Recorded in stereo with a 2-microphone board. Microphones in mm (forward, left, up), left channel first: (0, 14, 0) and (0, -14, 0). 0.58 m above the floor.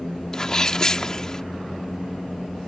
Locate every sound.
0.3 s a sneeze: 25° left (ahead or behind)